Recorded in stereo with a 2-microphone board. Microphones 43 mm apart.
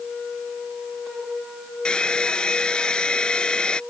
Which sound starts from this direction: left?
A hair dryer, at 1.9 s.